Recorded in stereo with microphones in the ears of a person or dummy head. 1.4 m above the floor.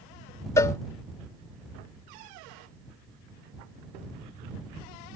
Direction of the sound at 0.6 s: 15° left (ahead or behind).